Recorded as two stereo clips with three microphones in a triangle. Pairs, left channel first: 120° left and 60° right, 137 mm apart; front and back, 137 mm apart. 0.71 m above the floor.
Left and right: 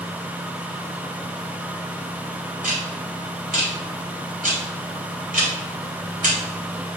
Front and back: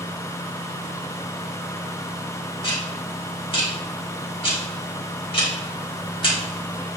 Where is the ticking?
50° right, 2.5 m.